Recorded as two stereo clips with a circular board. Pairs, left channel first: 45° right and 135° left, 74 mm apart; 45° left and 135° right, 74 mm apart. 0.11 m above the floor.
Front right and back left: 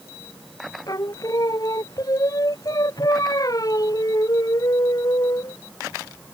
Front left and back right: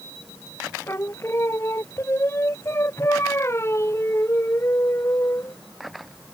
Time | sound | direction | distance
0.9 | singing | 10° right | ?